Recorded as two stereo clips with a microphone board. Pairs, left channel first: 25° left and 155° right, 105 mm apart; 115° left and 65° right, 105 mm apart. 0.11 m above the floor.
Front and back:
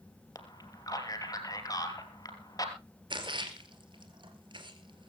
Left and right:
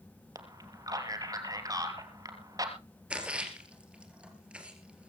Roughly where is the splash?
Behind right.